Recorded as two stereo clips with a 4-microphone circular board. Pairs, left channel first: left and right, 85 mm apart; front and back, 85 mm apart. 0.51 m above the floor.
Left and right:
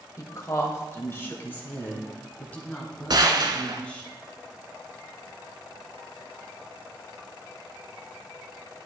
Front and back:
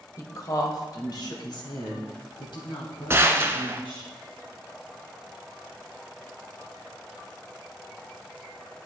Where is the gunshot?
120° right, 1.0 m.